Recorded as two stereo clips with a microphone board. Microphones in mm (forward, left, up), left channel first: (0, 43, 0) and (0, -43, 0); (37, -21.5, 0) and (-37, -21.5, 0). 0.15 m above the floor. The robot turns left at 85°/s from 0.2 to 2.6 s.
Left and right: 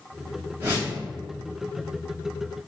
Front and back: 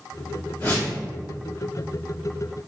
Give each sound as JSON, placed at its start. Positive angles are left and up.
{"t": 0.6, "sound": "a whoosh", "azimuth_deg": -45, "distance_m": 1.6}